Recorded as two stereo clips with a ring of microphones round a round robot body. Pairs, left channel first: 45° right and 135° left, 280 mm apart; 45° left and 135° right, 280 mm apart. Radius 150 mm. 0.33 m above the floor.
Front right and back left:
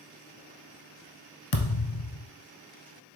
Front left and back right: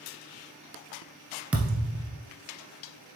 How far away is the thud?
About 0.9 m.